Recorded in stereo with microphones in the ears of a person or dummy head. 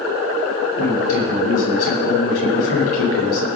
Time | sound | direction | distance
0.8 | a man speaking | 80° left | 9.5 m